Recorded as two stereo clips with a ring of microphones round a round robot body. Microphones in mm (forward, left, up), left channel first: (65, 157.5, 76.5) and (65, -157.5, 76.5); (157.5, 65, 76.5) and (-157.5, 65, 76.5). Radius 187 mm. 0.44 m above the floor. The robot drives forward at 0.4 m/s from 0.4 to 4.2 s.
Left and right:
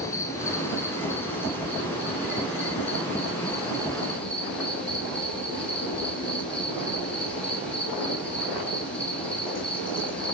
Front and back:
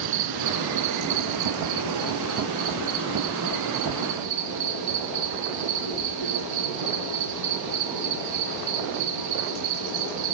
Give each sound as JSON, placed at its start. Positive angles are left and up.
{"t": 0.0, "sound": "an insect", "azimuth_deg": 170, "distance_m": 0.8}